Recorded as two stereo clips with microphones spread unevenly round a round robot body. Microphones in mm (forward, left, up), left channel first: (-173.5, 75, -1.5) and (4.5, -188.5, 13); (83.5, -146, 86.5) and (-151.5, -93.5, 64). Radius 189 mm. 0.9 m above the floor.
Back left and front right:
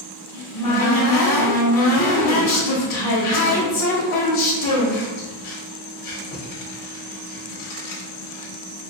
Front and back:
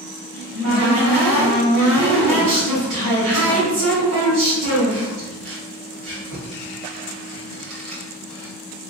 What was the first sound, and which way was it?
A cupboard door, 135° left.